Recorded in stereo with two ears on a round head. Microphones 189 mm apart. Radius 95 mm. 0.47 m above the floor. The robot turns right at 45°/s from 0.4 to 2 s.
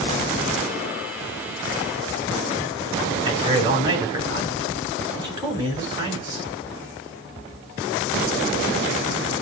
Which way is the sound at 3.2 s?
20° right (ahead or behind).